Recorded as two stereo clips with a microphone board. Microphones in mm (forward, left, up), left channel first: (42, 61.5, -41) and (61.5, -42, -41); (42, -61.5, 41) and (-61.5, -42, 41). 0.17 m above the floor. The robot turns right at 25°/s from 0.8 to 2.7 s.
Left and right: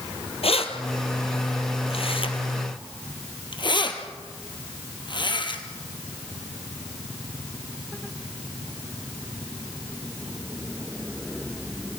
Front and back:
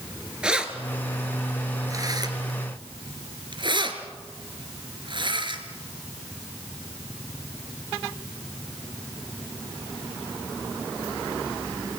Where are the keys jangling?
90° left, 2.5 m; by 5.6 s 135° left, 2.5 m.